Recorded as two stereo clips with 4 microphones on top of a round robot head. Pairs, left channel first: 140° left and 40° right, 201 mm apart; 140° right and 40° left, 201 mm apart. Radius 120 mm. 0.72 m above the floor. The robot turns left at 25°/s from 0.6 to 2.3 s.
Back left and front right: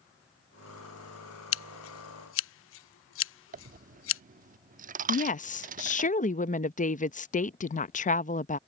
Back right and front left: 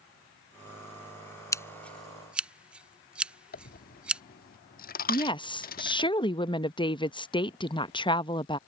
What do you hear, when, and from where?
1.5 s scissors: 145° left; by 4.2 s 125° left
3.5 s a dropped coin: 90° right
5.1 s a woman speaking: 165° left